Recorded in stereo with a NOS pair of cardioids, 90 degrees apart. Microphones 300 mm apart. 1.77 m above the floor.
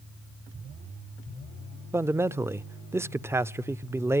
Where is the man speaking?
10° right, 0.5 m.